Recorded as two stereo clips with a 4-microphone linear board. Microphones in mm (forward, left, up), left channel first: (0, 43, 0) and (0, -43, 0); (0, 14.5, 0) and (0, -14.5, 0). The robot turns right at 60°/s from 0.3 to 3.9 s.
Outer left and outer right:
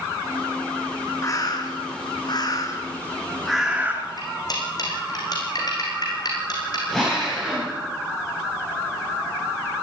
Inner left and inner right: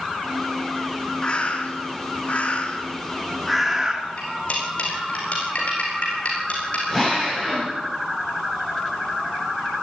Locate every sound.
1.2 s a bird: 45° left, 3 m; by 4.1 s 155° right, 3 m
4.2 s cutlery clinking: 55° left (ahead or behind), 6.5 m
6.9 s a drill: 5° left (ahead or behind), 8.5 m